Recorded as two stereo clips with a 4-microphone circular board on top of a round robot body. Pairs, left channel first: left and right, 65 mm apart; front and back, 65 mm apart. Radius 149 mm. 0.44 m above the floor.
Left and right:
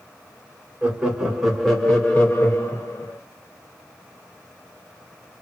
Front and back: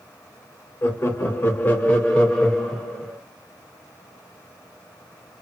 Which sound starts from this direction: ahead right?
Laughter, at 0.8 s.